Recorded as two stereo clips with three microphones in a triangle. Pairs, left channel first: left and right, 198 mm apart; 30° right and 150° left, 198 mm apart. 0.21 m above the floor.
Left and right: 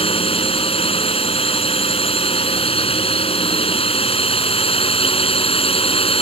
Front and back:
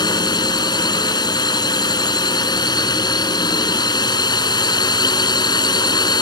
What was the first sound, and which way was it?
A drone, 35° left.